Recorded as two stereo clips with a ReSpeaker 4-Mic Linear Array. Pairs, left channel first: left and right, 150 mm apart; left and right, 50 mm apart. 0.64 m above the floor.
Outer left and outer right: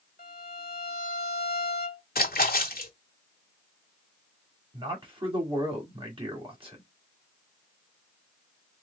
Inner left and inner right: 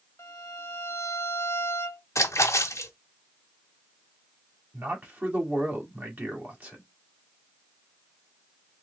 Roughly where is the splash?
Left.